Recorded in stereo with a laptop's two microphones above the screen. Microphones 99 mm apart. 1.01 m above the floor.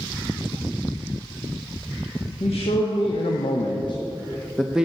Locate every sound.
2.4 s a man speaking: 80° left, 1.2 m; by 4.9 s 10° right (ahead or behind), 0.6 m